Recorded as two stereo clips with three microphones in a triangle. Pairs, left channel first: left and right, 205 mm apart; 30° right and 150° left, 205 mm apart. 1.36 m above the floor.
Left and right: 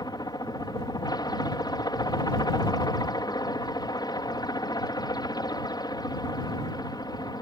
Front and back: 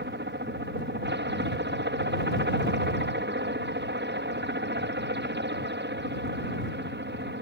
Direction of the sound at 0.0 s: 155° left.